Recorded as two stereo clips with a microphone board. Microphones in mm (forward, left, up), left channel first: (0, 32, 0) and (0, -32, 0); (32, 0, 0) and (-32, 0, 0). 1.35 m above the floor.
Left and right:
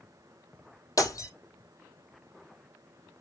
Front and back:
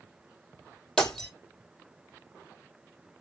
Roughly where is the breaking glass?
Left.